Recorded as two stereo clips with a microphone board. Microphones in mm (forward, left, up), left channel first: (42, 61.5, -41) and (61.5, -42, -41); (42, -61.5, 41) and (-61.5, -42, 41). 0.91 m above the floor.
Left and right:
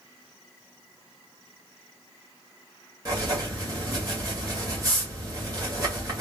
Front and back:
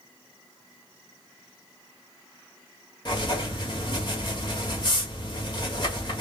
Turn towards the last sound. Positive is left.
turn(degrees=-35)